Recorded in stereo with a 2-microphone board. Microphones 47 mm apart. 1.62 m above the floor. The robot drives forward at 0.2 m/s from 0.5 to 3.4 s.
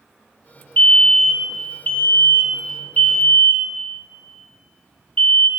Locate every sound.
0.8 s a fire alarm: 35° left (ahead or behind), 0.7 m; by 5.5 s 25° left (ahead or behind), 0.8 m